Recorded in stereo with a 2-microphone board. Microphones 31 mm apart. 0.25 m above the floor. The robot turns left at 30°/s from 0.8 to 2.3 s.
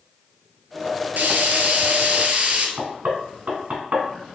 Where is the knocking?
55° right (ahead or behind), 1.6 m.